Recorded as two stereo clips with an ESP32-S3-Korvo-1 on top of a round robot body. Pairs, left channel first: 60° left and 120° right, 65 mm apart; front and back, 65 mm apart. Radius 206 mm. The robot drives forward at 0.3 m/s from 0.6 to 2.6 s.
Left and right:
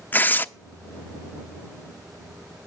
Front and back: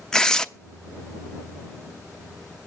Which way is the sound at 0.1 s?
70° left.